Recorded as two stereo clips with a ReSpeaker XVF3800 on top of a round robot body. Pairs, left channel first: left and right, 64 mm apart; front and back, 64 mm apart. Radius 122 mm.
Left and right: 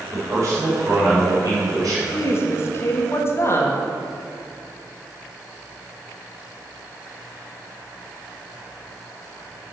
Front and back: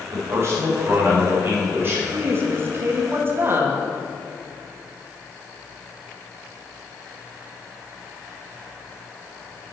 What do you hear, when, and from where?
0.1 s a man speaking: 135° right, 3 m; by 2.0 s 125° right, 4 m
2.1 s a woman speaking: 130° left, 1.5 m